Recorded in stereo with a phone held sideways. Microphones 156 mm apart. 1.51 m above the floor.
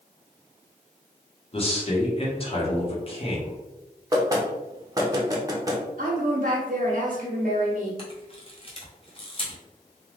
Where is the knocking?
20° right (ahead or behind), 0.6 m.